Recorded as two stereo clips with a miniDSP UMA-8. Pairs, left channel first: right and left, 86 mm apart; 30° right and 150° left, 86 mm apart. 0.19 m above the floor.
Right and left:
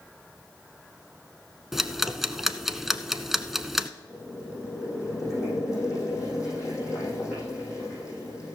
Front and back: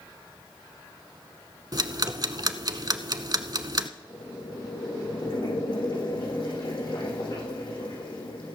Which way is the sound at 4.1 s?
40° right.